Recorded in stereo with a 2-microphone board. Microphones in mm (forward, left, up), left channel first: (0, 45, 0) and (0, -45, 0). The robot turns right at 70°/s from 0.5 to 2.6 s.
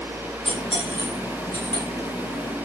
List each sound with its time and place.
0.5 s cutlery clinking: 85° left, 6.5 m; by 1.8 s 5° left (ahead or behind), 6.5 m